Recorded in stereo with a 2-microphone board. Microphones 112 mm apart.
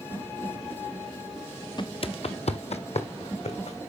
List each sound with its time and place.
1.8 s footsteps: 45° left (ahead or behind), 0.5 m; by 3.8 s 75° left (ahead or behind), 2 m